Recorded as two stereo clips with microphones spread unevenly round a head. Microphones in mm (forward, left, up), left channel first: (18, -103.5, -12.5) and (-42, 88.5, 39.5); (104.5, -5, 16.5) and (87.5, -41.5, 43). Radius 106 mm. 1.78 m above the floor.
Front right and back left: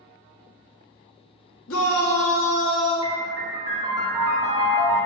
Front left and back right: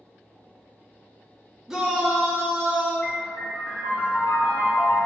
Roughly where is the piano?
Behind left.